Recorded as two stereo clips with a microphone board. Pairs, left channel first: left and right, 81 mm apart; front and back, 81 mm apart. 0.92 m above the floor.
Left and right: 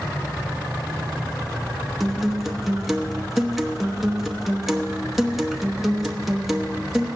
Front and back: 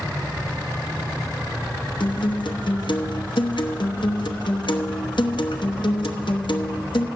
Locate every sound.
2.0 s a guitar: straight ahead, 1.0 m